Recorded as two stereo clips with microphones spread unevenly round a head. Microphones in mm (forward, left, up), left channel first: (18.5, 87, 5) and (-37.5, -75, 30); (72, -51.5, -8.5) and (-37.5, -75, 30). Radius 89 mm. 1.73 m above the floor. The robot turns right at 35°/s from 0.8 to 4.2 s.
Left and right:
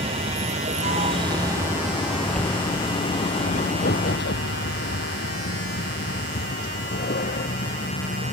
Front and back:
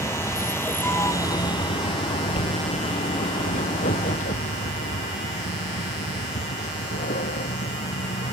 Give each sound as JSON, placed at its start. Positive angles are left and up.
{"t": 0.0, "sound": "a vehicle", "azimuth_deg": -50}